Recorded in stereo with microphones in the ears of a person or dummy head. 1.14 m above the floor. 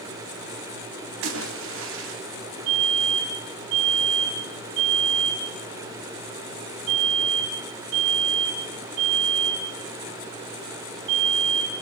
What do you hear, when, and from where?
1.2 s a splash: 80° right, 3.5 m
2.7 s a fire alarm: 70° right (ahead or behind), 8.5 m